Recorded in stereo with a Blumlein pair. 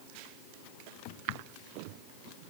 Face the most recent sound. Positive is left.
No sound to turn to.